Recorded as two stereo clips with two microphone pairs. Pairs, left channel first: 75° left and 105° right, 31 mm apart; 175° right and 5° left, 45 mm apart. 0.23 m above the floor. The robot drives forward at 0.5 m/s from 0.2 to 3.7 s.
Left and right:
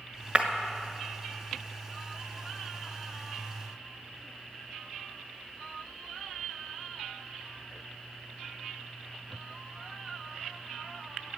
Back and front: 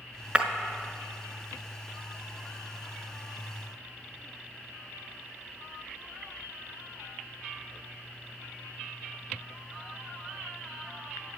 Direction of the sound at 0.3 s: 55° right.